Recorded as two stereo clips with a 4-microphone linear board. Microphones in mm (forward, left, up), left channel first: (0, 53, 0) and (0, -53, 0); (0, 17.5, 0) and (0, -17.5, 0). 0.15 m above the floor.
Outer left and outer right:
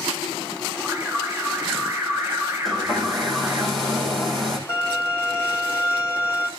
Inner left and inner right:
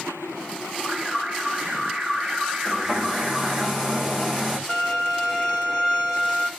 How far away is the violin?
About 4.5 m.